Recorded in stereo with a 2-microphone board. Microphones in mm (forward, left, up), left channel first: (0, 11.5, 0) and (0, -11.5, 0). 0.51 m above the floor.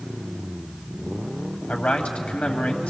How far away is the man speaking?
About 2.5 m.